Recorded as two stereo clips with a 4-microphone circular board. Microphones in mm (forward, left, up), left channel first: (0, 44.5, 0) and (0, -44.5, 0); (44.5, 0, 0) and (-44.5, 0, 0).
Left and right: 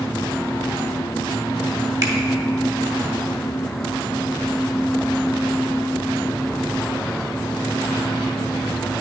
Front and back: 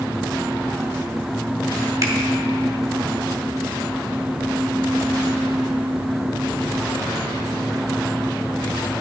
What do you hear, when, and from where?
2.0 s a finger snap: 135° right, 1.2 m